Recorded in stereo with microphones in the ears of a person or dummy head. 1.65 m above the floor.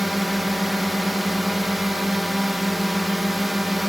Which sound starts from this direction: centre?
A drone, at 0.0 s.